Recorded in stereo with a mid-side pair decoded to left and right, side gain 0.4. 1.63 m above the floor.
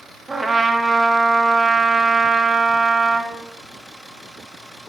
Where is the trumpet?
25° right, 0.5 m.